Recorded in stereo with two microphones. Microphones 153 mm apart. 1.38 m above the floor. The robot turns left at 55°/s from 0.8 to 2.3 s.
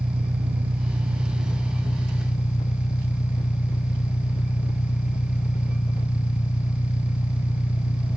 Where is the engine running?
140° right; by 8.2 s 135° left.